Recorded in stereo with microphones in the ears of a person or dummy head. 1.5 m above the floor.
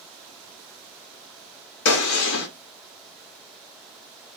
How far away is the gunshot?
About 1.1 m.